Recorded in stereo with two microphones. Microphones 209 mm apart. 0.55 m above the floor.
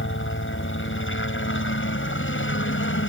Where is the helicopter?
65° left (ahead or behind).